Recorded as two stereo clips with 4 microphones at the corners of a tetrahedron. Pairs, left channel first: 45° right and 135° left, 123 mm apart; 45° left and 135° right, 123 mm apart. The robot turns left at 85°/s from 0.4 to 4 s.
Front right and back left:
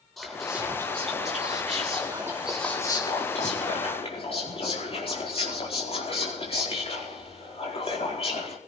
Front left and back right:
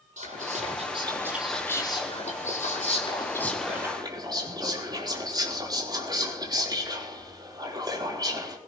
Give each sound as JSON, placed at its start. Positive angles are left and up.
{"t": 0.2, "sound": "whispering", "azimuth_deg": -135, "distance_m": 4.5}